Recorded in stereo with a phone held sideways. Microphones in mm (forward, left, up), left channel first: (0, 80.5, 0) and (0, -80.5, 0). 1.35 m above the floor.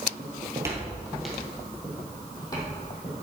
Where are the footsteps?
30° right (ahead or behind), 1.8 m; by 3.1 s 30° left (ahead or behind), 3.5 m.